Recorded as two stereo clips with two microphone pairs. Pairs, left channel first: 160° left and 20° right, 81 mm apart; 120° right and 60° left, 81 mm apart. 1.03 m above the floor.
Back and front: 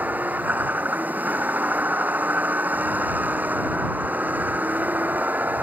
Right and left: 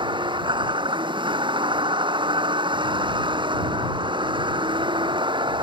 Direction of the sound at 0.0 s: 50° left.